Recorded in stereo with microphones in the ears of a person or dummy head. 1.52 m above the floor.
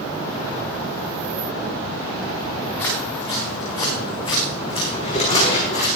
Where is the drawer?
40° left (ahead or behind), 6 m.